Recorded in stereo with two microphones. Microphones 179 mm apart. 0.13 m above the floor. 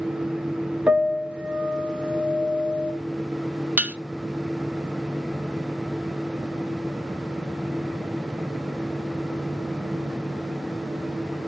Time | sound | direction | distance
0.9 | a piano | 5° right (ahead or behind) | 1.1 m
3.8 | dishes clattering | 10° right (ahead or behind) | 0.8 m